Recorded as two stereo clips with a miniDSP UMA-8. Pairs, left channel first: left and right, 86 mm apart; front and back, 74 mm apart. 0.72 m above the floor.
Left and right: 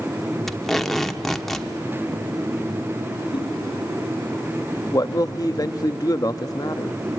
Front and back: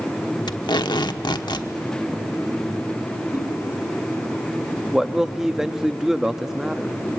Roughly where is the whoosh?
Behind left.